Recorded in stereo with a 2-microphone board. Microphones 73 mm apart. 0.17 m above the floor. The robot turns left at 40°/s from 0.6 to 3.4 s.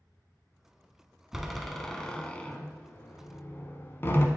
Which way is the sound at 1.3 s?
5° right (ahead or behind).